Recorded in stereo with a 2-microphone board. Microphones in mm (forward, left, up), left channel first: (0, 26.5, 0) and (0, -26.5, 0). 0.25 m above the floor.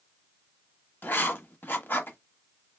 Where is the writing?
40° left (ahead or behind), 0.8 m.